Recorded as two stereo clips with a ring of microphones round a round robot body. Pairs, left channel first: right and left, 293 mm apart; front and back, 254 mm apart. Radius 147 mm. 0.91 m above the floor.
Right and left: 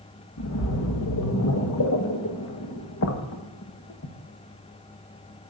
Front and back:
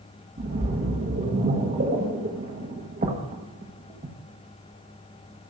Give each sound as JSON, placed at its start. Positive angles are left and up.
{"t": 0.4, "sound": "a splash", "azimuth_deg": -125, "distance_m": 1.3}